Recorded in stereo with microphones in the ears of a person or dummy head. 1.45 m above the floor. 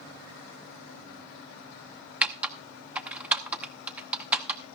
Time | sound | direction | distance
2.2 | typing on a keyboard | 10° right (ahead or behind) | 0.7 m